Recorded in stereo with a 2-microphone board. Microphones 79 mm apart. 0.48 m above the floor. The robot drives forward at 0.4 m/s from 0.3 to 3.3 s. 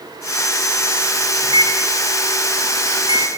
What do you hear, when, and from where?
1.4 s a microwave: 65° right (ahead or behind), 3.5 m; by 3.3 s 75° right (ahead or behind), 3 m